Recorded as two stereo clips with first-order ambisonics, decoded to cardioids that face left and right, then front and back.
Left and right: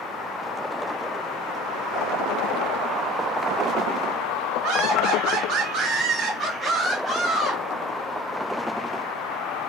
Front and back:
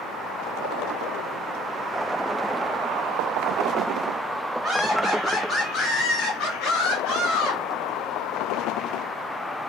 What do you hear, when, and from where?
4.6 s laughter: 110° right, 0.7 m; by 7.6 s 5° left, 1.3 m